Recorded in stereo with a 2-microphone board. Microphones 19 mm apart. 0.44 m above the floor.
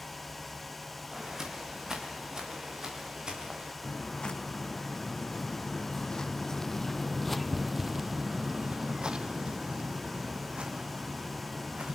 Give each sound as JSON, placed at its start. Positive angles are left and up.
{"t": 1.1, "sound": "footsteps", "side_deg": -25, "distance_m": 7.5}
{"t": 3.8, "sound": "footsteps", "side_deg": 60, "distance_m": 2.5}